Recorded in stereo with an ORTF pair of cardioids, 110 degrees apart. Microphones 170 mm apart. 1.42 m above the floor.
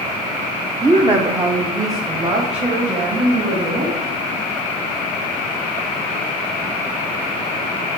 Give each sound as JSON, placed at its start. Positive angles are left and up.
{"t": 0.8, "sound": "a woman speaking", "azimuth_deg": -20, "distance_m": 0.7}